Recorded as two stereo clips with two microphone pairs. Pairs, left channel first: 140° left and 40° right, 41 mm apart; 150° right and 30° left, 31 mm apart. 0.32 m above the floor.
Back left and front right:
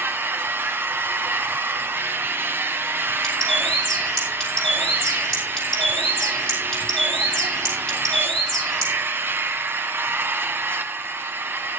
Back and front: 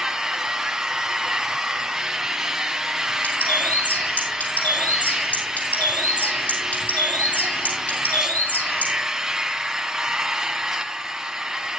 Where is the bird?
145° right, 5.5 m.